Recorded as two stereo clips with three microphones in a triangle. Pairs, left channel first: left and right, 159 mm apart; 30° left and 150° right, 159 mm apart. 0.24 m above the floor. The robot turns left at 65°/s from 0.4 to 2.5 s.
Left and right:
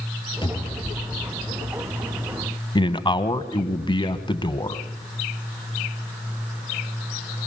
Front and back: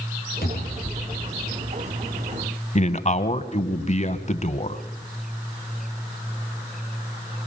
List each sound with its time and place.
0.4 s a cupboard door: 35° left, 3.5 m; by 1.3 s 20° right, 3.5 m
2.8 s a man speaking: 45° left, 1.3 m